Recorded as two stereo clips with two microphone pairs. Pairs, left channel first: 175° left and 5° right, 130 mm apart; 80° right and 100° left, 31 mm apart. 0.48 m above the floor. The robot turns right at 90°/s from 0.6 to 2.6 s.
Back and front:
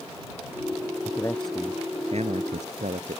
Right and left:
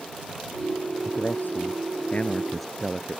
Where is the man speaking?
135° right; by 3.2 s 5° left.